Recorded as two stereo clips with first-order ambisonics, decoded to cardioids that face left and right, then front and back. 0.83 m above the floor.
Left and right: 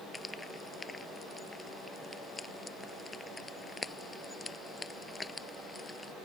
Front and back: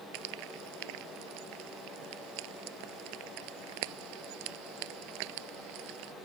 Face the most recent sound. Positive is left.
turn(degrees=170)